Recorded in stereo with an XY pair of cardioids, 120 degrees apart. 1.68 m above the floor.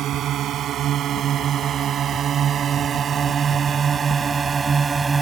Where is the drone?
60° right; by 5.2 s 25° right.